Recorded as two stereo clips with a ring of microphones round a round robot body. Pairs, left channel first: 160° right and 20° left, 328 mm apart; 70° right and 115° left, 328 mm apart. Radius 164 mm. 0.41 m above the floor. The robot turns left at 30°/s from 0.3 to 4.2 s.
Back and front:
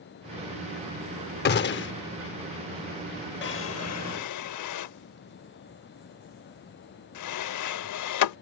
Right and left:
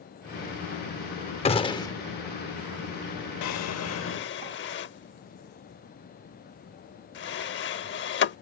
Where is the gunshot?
125° right; by 1.9 s 140° right.